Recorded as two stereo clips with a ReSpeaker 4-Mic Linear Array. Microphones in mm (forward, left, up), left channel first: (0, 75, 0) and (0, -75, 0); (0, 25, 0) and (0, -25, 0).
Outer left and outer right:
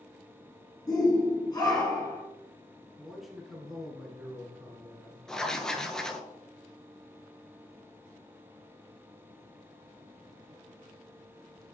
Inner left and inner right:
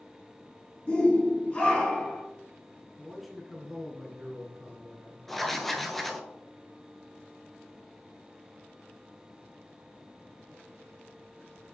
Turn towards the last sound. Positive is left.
turn(degrees=5)  # may be behind; listen again after turning